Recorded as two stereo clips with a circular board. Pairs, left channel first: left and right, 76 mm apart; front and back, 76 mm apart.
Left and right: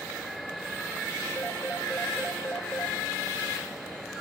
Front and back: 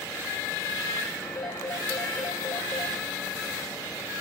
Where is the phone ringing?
25° left, 3 m.